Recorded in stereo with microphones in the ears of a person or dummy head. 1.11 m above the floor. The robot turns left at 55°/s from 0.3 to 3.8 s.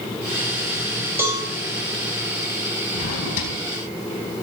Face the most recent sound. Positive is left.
turn(degrees=55)